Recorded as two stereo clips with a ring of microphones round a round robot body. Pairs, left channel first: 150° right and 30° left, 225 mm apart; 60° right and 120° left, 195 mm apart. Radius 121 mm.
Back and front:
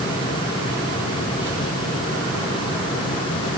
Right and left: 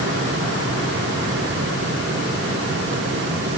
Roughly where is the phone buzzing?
No phone buzzing in this recording.